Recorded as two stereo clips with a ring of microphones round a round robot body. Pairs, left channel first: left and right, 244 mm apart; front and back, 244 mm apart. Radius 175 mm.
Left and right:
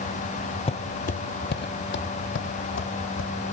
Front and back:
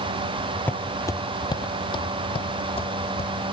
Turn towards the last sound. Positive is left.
turn(degrees=65)